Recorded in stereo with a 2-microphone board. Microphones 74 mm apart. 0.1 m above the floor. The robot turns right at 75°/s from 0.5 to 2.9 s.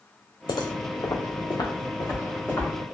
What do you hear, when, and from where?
0.5 s footsteps: 75° left (ahead or behind), 0.5 m; by 2.7 s 15° left (ahead or behind), 1.6 m